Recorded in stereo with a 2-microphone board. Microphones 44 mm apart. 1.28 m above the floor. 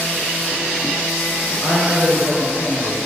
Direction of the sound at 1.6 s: 50° left (ahead or behind).